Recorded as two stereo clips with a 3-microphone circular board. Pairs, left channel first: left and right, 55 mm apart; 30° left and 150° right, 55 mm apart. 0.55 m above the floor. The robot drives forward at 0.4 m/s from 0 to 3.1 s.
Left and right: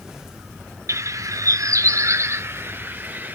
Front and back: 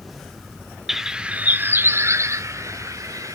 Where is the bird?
65° right, 0.6 m; by 3.3 s 145° right, 0.8 m.